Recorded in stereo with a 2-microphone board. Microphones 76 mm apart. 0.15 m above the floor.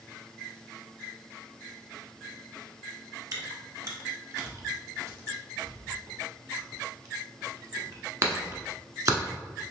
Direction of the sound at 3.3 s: 45° right (ahead or behind).